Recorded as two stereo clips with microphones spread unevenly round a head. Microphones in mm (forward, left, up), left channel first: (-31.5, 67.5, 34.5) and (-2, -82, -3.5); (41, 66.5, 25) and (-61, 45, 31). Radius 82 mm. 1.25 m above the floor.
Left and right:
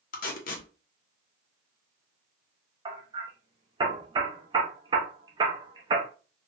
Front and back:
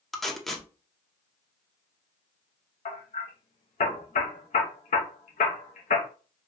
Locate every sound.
0.1 s tape being pulled: 100° left, 0.7 m
2.9 s hammering: 5° right, 0.7 m